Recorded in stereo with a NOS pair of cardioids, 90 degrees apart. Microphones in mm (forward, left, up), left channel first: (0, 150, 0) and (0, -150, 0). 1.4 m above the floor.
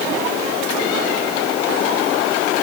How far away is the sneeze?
I don't hear a sneeze.